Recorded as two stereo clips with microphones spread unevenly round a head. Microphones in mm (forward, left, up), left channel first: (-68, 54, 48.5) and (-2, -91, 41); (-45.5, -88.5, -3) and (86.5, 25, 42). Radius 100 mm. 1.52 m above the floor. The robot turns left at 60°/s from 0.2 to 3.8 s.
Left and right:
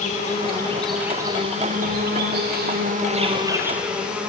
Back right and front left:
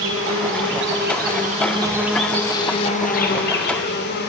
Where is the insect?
70° left, 2.5 m; by 4.3 s 150° right, 2.5 m.